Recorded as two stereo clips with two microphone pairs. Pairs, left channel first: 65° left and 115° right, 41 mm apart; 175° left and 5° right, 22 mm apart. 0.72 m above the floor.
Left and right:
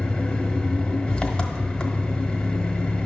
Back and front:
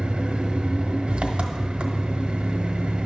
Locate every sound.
0.0 s an engine running: straight ahead, 0.9 m